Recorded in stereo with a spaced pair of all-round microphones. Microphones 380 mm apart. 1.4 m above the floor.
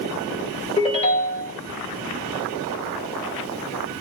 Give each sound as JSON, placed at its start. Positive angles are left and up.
{"t": 0.8, "sound": "a ringtone", "side_deg": 15, "distance_m": 1.2}